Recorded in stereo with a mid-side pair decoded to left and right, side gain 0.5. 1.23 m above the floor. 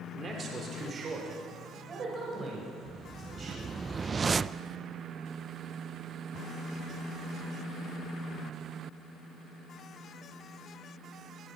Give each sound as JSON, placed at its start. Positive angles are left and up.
{"t": 0.1, "sound": "a man speaking", "azimuth_deg": -40, "distance_m": 4.5}
{"t": 2.9, "sound": "a whoosh", "azimuth_deg": -30, "distance_m": 0.5}